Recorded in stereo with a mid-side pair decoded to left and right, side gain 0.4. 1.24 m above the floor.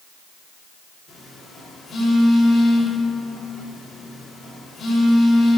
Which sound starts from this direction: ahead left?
A phone buzzing, at 1.1 s.